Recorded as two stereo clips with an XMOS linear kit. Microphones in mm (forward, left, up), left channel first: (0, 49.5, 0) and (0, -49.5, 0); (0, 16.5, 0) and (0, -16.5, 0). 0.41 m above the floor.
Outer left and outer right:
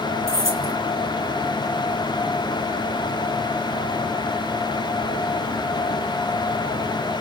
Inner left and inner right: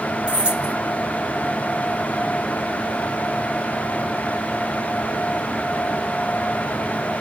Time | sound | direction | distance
0.3 | keys jangling | 30° right (ahead or behind) | 1.5 m